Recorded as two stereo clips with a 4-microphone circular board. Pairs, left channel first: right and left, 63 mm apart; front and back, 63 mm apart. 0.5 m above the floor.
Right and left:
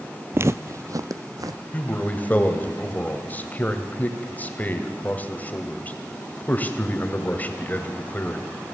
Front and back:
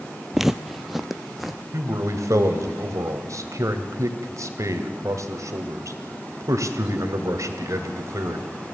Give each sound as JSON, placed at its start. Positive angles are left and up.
{"t": 0.3, "sound": "footsteps", "azimuth_deg": 100, "distance_m": 0.6}
{"t": 1.7, "sound": "a man speaking", "azimuth_deg": -150, "distance_m": 2.0}